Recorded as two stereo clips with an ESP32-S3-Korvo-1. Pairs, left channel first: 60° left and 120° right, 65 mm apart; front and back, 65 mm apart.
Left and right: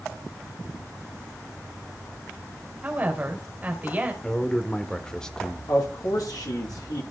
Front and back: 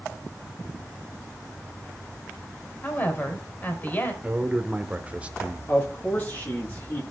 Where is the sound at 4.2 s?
130° left, 1.1 m.